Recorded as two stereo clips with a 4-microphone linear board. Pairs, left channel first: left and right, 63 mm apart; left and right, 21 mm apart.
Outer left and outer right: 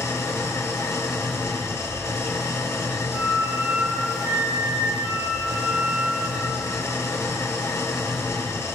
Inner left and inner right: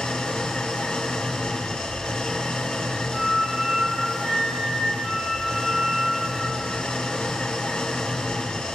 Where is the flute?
35° right (ahead or behind), 1.0 m.